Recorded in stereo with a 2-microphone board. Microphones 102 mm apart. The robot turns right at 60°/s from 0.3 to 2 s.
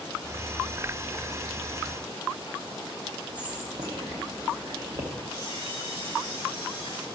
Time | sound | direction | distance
3.4 | whispering | 45° right (ahead or behind) | 0.9 m
5.3 | a camera shutter | 55° right (ahead or behind) | 4.5 m